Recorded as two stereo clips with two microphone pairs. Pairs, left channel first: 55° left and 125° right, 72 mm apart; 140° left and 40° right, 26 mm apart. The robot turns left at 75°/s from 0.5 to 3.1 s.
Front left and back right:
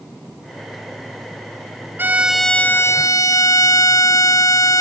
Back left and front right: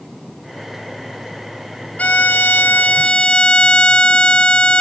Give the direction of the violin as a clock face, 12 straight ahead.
6 o'clock.